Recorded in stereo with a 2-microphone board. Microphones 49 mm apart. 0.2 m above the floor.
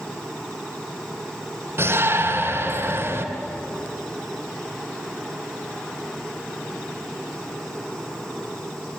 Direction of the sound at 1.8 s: 55° right (ahead or behind).